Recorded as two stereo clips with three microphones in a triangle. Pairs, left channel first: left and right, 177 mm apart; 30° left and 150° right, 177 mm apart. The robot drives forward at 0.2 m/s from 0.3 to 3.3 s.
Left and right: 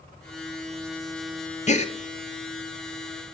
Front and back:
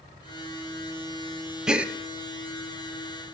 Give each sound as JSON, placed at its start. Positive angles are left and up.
{"t": 1.7, "sound": "a gasp", "azimuth_deg": 125, "distance_m": 0.8}